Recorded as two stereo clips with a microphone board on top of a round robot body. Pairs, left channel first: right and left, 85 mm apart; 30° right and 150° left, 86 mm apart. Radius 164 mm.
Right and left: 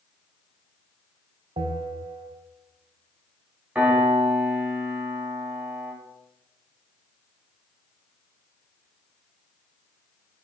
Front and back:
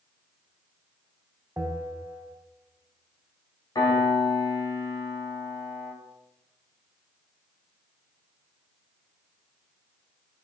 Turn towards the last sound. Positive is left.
turn(degrees=15)